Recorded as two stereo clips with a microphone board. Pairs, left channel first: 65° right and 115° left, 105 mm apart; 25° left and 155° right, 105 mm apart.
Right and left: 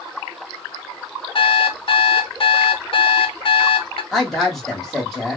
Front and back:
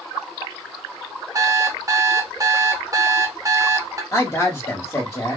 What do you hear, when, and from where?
1.4 s an alarm clock: 100° right, 0.5 m
4.1 s a woman speaking: 15° left, 1.1 m